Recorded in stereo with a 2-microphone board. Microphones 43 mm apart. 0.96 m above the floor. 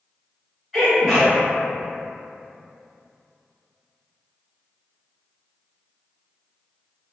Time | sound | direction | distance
0.7 | a sneeze | centre (ahead or behind) | 1.2 m